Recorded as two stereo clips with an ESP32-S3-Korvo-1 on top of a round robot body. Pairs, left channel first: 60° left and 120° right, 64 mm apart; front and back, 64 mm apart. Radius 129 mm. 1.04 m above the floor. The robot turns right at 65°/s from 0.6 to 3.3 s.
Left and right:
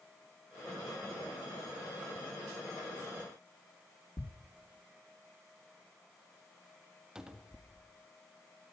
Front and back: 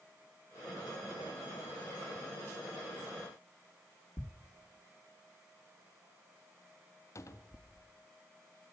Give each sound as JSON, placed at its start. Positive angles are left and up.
{"t": 4.2, "sound": "a thud", "azimuth_deg": 40, "distance_m": 1.5}
{"t": 7.2, "sound": "a cupboard door", "azimuth_deg": -40, "distance_m": 1.9}